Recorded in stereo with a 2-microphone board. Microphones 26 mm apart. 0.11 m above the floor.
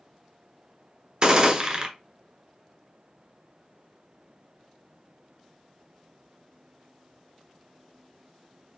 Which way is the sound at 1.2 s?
25° right (ahead or behind).